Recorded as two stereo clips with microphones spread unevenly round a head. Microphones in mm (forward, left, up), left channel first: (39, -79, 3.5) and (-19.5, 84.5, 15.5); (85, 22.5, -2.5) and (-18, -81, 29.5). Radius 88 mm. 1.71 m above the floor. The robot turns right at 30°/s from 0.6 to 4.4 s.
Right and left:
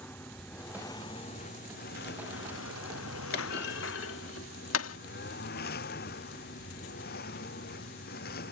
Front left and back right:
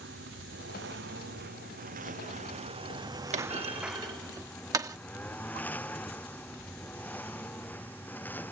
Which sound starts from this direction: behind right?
A lawn mower, at 0.0 s.